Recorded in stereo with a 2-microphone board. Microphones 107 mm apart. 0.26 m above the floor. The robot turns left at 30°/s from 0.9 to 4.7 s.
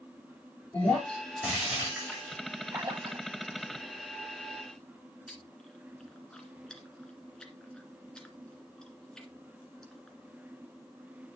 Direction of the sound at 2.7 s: 25° right (ahead or behind).